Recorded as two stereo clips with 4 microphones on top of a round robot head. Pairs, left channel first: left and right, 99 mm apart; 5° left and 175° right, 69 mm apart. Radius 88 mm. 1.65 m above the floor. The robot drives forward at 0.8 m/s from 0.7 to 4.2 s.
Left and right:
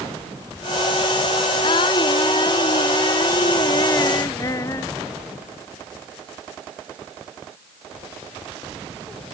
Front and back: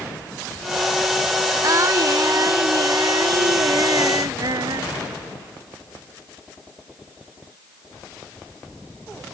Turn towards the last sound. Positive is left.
turn(degrees=155)